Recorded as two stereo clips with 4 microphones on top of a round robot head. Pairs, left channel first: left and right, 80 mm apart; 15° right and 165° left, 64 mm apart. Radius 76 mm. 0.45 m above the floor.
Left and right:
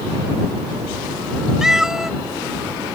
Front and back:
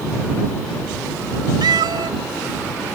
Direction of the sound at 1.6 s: 175° right.